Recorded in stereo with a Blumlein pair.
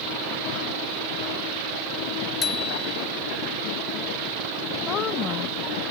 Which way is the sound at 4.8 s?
30° left.